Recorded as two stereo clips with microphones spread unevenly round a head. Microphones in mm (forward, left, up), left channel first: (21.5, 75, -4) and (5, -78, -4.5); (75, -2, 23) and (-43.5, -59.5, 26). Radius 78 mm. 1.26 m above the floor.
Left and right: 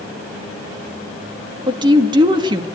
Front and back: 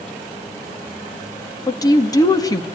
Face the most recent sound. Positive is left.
turn(degrees=-35)